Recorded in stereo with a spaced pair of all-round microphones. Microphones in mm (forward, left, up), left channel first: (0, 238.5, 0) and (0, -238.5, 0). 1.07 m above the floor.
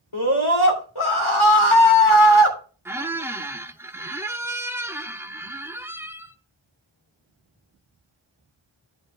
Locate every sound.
0.1 s a scream: 90° left, 3 m
2.9 s a squeak: 5° right (ahead or behind), 0.6 m